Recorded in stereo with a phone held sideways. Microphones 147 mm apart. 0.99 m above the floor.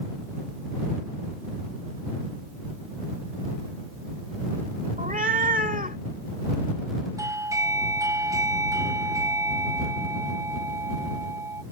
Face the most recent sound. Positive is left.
turn(degrees=-20)  # may be behind; listen again after turning